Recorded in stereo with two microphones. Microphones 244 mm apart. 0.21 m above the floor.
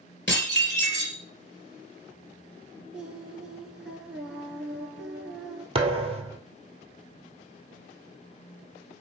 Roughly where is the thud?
Right.